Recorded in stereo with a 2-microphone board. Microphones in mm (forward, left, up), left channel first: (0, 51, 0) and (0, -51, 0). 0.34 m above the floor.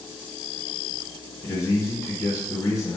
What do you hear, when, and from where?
1.4 s a man speaking: 35° left (ahead or behind), 1.1 m